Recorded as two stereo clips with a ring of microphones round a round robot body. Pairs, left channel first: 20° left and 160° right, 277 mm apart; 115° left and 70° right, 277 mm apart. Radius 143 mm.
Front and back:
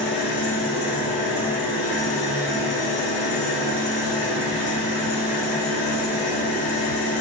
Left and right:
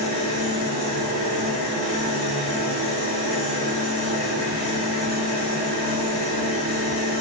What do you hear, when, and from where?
0.0 s an engine running: 90° left, 3 m